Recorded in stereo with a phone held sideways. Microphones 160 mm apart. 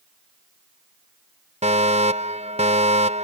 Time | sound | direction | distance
1.6 | a fire alarm | 45° right (ahead or behind) | ?